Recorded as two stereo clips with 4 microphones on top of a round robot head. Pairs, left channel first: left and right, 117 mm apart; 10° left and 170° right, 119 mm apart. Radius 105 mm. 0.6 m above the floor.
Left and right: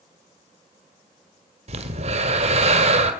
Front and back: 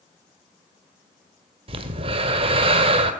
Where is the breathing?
125° right, 2.0 m.